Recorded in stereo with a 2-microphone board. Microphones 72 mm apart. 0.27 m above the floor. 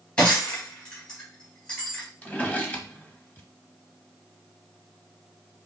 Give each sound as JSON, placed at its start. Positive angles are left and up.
{"t": 0.2, "sound": "breaking glass", "side_deg": 15, "distance_m": 3.0}
{"t": 2.2, "sound": "a drawer", "side_deg": 15, "distance_m": 0.9}